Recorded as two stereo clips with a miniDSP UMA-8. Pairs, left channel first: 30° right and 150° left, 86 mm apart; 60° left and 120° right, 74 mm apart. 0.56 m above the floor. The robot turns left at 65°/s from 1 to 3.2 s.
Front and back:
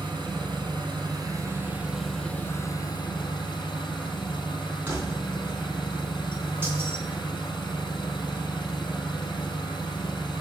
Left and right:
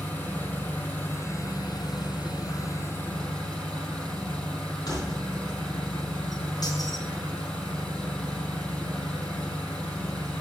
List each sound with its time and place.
0.0 s an engine running: 130° left, 4 m; by 10.4 s 15° right, 4 m
4.9 s keys jangling: 90° left, 3.5 m